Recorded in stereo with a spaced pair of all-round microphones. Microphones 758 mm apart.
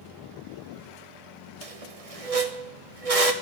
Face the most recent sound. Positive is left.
turn(degrees=-50)  # may be behind; listen again after turning